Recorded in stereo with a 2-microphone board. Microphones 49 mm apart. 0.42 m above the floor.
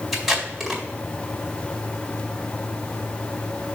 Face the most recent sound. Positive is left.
turn(degrees=-5)  # may be behind; listen again after turning